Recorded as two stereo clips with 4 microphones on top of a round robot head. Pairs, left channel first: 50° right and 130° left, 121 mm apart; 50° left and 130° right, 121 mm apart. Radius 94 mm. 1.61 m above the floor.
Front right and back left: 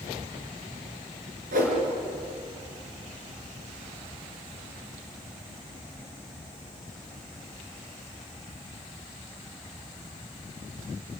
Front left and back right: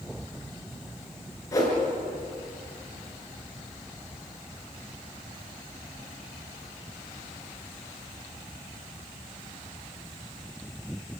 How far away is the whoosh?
About 5 m.